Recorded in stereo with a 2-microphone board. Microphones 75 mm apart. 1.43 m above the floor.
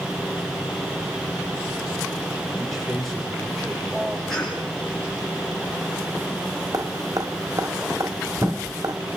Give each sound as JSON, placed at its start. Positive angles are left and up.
{"t": 2.6, "sound": "a man speaking", "side_deg": 0, "distance_m": 6.0}
{"t": 4.3, "sound": "a cough", "side_deg": 5, "distance_m": 9.0}
{"t": 6.7, "sound": "dripping", "side_deg": -55, "distance_m": 2.0}